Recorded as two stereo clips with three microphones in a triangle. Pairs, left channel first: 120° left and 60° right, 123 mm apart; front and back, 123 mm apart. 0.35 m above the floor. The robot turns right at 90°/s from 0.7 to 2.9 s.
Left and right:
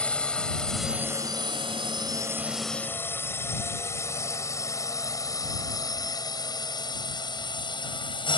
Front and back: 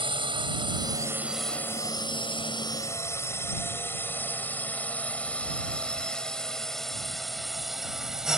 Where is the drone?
165° right; by 8.4 s 95° left.